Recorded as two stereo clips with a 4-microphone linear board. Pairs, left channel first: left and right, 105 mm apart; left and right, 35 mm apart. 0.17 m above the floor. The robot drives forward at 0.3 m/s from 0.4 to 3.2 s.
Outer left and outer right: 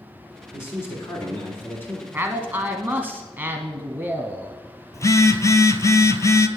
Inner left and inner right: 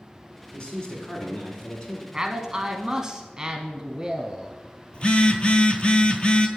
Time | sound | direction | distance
0.5 | a man speaking | 25° left (ahead or behind) | 1.9 m
2.1 | a man speaking | 20° right (ahead or behind) | 1.1 m
4.9 | a phone buzzing | 30° left (ahead or behind) | 0.6 m